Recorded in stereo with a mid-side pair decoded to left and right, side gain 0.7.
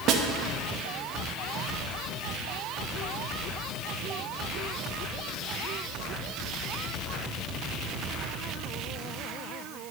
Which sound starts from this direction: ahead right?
A snare drum, at 0.1 s.